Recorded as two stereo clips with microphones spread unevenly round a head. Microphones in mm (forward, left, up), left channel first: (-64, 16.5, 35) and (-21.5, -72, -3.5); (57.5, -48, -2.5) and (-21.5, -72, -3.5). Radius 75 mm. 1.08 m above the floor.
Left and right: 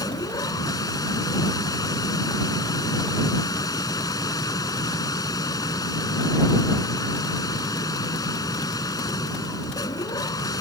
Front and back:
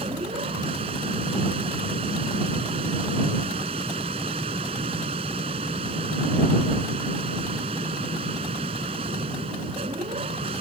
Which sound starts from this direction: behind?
A machine running, at 0.0 s.